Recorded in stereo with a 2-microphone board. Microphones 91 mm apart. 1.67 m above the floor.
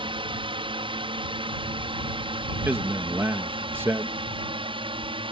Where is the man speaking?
25° right (ahead or behind).